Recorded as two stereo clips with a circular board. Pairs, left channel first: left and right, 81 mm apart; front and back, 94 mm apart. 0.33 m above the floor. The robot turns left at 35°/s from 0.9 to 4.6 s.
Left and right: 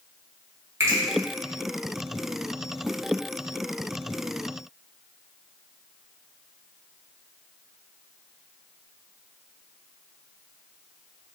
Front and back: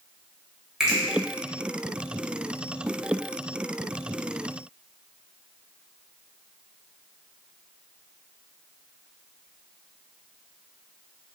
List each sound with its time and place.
0.8 s a finger snap: 100° right, 0.8 m; by 1.0 s 105° right, 0.8 m